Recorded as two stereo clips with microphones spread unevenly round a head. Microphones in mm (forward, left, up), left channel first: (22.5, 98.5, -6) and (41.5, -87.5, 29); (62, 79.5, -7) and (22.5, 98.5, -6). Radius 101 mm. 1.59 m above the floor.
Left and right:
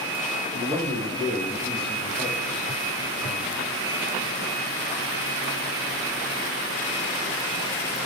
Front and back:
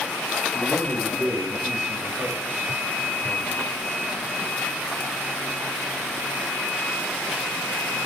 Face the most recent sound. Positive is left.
turn(degrees=-160)